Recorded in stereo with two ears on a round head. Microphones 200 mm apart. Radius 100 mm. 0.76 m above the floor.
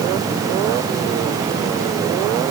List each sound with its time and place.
Only background noise.